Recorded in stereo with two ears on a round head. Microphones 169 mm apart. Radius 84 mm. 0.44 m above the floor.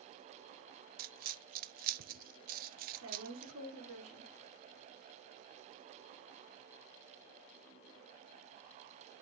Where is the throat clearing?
I don't hear throat clearing.